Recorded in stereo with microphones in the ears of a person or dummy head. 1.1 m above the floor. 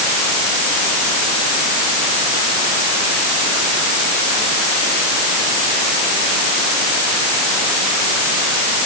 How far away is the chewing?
I don't hear chewing.